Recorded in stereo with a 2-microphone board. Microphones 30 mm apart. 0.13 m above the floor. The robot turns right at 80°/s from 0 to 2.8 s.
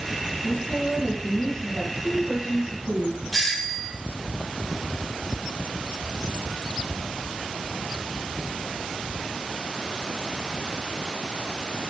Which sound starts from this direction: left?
A woman speaking, at 0.4 s.